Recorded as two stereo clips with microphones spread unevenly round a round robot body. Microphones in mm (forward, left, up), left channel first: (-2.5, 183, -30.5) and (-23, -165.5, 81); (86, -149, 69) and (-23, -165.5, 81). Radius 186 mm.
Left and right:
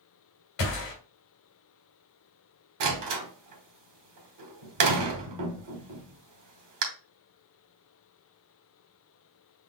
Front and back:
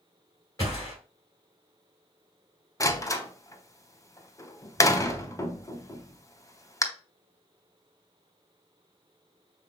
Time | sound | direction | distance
0.6 | a gunshot | 70° left | 2.5 m
2.8 | a door slam | 50° right | 1.5 m